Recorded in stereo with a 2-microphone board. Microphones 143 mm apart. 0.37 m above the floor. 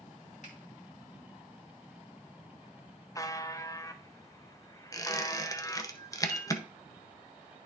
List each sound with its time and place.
0.4 s a finger snap: 60° left (ahead or behind), 2.5 m
3.1 s a buzzer: 25° left (ahead or behind), 0.6 m
4.9 s a squeak: 25° left (ahead or behind), 0.7 m
6.3 s a piano: 10° left (ahead or behind), 4.5 m